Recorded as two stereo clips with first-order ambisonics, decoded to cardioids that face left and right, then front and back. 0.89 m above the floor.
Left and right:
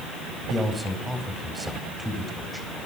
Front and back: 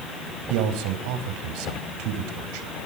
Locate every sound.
0.5 s a man speaking: 175° right, 4 m